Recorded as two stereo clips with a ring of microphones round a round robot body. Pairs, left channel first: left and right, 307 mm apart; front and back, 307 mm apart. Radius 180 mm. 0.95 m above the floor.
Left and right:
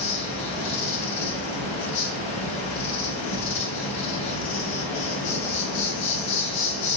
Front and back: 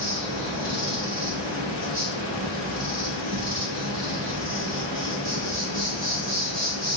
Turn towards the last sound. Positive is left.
turn(degrees=115)